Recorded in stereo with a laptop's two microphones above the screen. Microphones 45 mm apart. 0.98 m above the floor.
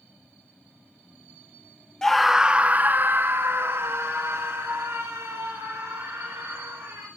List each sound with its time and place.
2.0 s a scream: 10° left (ahead or behind), 0.6 m; by 7.1 s 75° right (ahead or behind), 4 m